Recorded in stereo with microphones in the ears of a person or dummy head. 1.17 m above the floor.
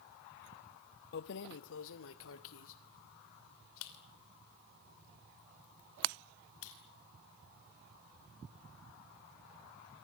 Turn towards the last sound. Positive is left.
turn(degrees=85)